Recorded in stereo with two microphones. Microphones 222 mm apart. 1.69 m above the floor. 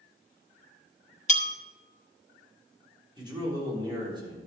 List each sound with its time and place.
1.3 s a bell: 30° left (ahead or behind), 1.4 m
3.2 s a man speaking: 20° right (ahead or behind), 4.5 m